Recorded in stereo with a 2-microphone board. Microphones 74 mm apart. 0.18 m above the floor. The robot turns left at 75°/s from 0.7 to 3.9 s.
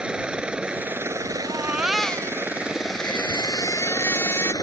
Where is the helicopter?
15° right; by 4.6 s 105° left.